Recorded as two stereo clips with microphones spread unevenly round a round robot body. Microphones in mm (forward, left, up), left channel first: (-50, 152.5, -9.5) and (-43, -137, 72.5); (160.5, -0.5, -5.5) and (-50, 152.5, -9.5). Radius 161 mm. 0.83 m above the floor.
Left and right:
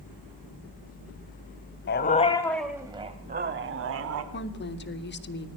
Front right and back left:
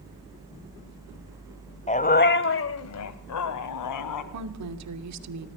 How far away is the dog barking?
About 1.7 m.